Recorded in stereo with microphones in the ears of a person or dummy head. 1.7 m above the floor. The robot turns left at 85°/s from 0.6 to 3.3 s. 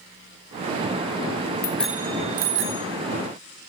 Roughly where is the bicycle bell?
Centre.